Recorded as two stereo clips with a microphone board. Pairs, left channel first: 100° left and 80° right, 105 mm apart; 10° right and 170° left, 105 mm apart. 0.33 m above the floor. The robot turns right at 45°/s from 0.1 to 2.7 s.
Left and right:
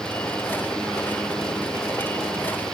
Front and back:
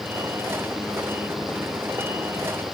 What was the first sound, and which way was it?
Only background noise.